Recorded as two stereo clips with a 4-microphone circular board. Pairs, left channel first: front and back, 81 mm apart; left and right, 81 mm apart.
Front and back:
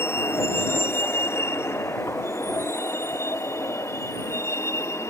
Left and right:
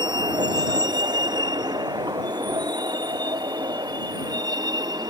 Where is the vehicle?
60° right; by 5.1 s 55° right.